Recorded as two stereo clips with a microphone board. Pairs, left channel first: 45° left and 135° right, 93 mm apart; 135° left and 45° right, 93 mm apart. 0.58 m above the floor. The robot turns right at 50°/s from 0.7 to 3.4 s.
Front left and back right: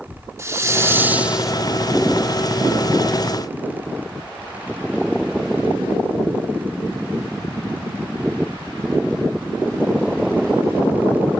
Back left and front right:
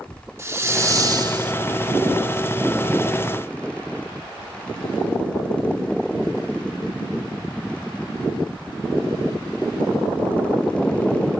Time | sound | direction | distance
0.4 | a hiss | 95° right | 1.2 m